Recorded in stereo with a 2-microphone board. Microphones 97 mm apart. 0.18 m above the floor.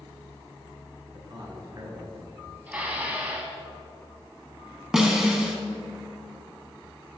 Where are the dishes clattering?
15° right (ahead or behind), 0.9 m.